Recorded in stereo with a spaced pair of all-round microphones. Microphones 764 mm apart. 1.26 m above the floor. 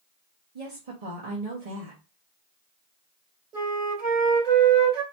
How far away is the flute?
About 3 m.